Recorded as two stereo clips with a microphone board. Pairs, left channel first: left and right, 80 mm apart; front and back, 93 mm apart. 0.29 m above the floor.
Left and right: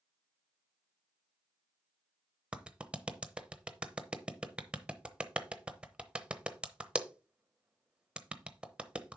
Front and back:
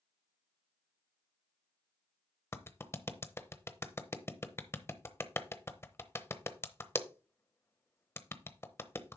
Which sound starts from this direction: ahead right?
A clap, at 2.5 s.